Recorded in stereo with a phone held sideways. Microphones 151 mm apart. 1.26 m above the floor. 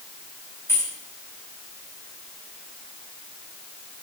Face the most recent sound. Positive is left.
turn(degrees=15)  # may be behind; listen again after turning